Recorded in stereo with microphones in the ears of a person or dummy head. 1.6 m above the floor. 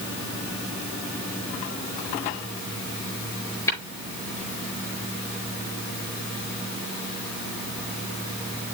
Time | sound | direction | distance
3.7 | tapping | 15° left (ahead or behind) | 6 m